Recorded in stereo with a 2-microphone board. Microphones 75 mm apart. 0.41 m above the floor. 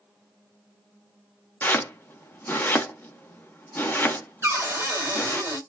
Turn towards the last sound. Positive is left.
turn(degrees=-30)  # may be behind; listen again after turning